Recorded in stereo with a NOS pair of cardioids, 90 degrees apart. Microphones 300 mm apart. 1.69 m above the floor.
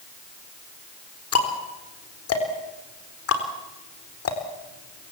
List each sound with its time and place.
1.3 s ticking: 50° left, 4 m